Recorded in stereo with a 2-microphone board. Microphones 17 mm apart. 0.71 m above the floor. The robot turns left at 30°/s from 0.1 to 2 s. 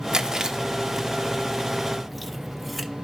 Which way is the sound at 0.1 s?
50° right (ahead or behind).